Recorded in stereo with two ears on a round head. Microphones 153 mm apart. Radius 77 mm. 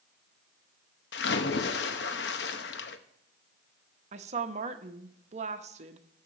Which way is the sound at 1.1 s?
70° left (ahead or behind).